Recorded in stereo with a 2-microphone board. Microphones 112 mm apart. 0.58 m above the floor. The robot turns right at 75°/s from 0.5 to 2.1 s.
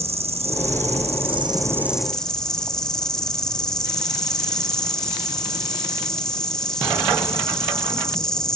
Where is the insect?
115° right, 3 m; by 8.6 s 5° left, 3 m.